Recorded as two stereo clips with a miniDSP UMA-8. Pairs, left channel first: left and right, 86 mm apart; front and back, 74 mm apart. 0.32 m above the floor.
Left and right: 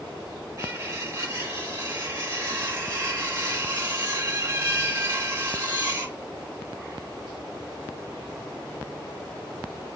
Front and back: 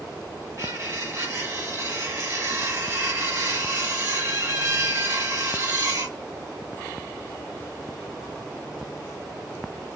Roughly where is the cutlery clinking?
Behind right.